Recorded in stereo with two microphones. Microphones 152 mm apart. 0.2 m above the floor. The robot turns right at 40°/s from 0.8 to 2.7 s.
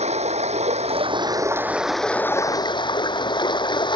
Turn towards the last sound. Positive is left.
turn(degrees=30)